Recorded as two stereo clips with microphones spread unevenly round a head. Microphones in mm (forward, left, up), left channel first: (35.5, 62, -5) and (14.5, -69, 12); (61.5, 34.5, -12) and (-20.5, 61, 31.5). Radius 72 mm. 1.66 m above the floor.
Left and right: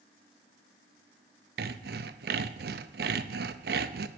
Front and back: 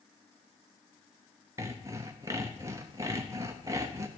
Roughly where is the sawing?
Behind right.